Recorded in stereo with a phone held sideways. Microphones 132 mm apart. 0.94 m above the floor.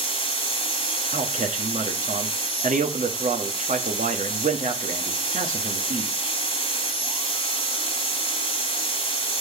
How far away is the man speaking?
About 1.1 m.